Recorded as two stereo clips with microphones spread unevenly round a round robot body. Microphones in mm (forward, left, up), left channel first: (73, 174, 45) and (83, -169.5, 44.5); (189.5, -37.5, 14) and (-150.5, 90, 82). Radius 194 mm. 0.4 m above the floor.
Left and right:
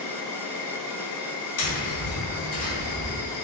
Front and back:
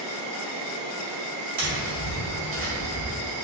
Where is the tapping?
105° left, 1.6 m.